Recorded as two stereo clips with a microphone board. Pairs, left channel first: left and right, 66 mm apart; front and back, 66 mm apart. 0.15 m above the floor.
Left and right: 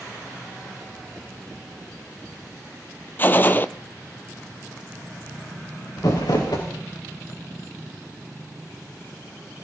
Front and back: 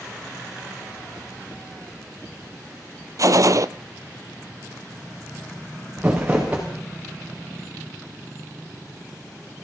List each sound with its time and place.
3.2 s a gunshot: 150° left, 0.8 m
6.0 s crumpling: 105° left, 6.5 m